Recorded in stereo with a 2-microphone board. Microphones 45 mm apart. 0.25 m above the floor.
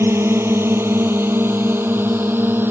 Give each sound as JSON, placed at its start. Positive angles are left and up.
{"t": 0.0, "sound": "a drone", "side_deg": -65}